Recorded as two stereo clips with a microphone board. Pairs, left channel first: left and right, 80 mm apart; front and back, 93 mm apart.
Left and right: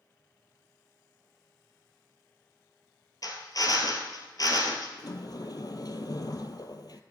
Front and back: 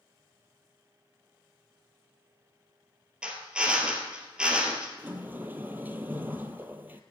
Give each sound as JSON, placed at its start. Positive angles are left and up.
{"t": 3.2, "sound": "a drill", "azimuth_deg": 105, "distance_m": 2.5}
{"t": 5.0, "sound": "a sliding door", "azimuth_deg": 115, "distance_m": 1.2}